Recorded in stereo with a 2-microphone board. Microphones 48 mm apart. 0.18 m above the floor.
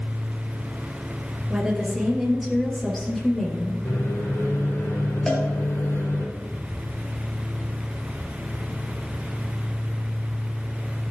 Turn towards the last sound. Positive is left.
turn(degrees=15)  # may be behind; listen again after turning